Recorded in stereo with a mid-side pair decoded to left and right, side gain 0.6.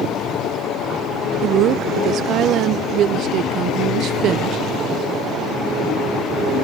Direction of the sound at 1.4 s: 60° right.